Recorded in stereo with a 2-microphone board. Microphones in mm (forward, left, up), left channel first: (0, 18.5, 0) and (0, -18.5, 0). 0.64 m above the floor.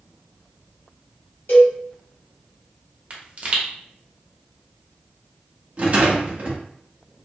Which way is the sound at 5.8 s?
45° right (ahead or behind).